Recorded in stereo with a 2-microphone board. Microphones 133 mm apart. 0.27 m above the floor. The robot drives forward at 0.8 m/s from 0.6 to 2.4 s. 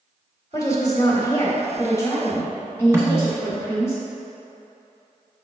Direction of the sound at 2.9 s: 20° right (ahead or behind).